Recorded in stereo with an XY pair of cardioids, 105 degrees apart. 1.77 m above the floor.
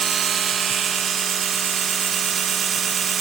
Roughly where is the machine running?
Ahead right.